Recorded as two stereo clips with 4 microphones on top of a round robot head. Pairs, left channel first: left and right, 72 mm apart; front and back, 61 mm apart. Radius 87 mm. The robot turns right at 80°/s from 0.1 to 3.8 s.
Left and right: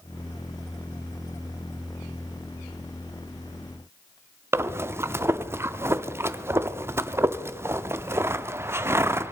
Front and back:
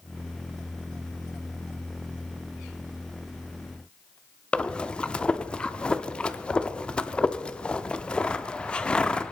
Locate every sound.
4.5 s breathing: 60° right, 0.7 m